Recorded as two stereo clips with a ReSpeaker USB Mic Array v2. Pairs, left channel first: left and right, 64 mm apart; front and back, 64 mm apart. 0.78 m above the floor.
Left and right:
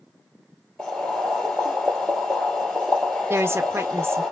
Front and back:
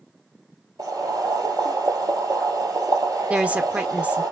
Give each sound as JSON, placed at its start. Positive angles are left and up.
{"t": 0.8, "sound": "boiling", "azimuth_deg": 175, "distance_m": 2.0}
{"t": 3.3, "sound": "a woman speaking", "azimuth_deg": -120, "distance_m": 0.6}